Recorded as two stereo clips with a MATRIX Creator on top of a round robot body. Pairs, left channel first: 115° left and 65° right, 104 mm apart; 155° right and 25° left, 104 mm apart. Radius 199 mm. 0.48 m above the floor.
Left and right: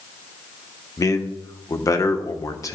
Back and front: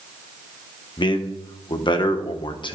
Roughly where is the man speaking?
Behind.